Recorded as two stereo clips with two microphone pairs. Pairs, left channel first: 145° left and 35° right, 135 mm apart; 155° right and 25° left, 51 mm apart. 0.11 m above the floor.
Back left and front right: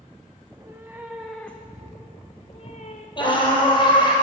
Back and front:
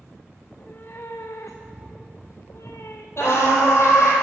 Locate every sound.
0.4 s a cat meowing: 100° right, 1.2 m; by 3.1 s 175° left, 1.4 m
3.2 s a scream: 170° right, 3 m